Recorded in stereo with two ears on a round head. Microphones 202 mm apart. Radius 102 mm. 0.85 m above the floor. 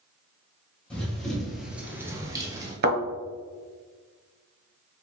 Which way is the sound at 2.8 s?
45° right (ahead or behind).